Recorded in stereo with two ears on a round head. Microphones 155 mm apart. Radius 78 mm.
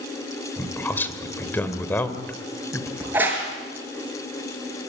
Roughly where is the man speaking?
Centre.